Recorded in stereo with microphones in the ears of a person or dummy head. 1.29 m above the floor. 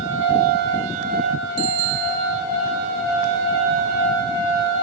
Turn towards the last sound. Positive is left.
turn(degrees=-60)  # may be behind; listen again after turning